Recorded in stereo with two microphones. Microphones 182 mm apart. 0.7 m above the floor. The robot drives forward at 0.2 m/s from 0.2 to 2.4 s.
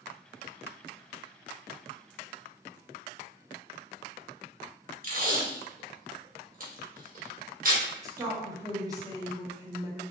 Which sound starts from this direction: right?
Tape being pulled, at 5.0 s.